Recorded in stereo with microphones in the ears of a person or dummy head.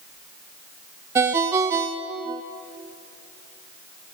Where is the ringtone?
10° right (ahead or behind), 0.9 m.